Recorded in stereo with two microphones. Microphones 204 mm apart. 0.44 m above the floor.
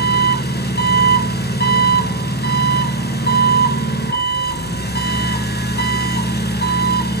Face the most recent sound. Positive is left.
turn(degrees=55)  # may be behind; listen again after turning